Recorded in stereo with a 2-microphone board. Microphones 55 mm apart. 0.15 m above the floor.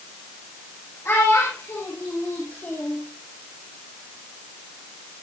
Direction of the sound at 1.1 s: 55° left (ahead or behind).